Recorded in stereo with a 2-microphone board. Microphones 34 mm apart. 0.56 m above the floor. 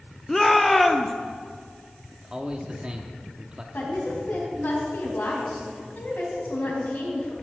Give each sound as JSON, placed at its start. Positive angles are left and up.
{"t": 0.3, "sound": "a shout", "side_deg": 5, "distance_m": 0.6}
{"t": 2.1, "sound": "a man speaking", "side_deg": -25, "distance_m": 0.8}
{"t": 3.7, "sound": "a woman speaking", "side_deg": 65, "distance_m": 3.5}